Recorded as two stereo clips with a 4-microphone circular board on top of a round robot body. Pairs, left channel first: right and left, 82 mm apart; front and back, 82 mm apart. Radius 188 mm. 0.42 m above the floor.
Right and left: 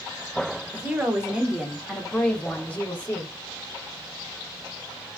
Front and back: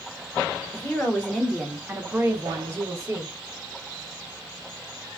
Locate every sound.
0.7 s a woman speaking: 40° left, 1.1 m; by 3.3 s 145° right, 1.4 m